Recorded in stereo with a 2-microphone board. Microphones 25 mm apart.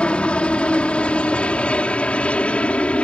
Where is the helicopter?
50° left (ahead or behind); by 3.0 s 60° left (ahead or behind).